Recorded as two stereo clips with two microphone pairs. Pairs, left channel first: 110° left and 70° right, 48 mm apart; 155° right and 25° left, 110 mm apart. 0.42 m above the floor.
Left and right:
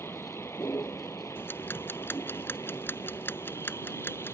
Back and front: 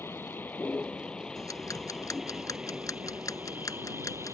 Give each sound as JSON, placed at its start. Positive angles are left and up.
{"t": 0.0, "sound": "a vehicle", "azimuth_deg": 135}
{"t": 1.4, "sound": "ticking", "azimuth_deg": 145}